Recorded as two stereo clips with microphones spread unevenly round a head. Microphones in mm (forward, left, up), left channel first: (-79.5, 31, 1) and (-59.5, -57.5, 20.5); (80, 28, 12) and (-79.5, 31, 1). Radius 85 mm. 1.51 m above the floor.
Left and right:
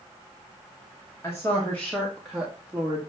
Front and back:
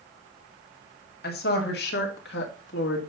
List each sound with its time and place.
1.2 s a woman speaking: 25° left, 2.5 m; by 3.0 s 5° right, 1.9 m